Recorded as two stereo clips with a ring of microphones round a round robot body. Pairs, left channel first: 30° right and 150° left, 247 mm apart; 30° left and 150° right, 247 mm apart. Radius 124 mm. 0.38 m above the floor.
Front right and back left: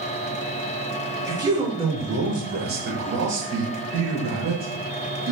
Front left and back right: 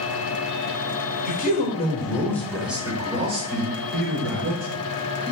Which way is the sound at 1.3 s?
75° left.